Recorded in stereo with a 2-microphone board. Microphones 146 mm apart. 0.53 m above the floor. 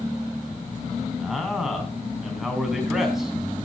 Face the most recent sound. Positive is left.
turn(degrees=0)  # may be behind; listen again after turning